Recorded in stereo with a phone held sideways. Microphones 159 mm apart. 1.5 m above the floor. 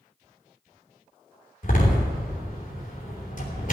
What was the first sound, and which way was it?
A door slam, 55° left (ahead or behind).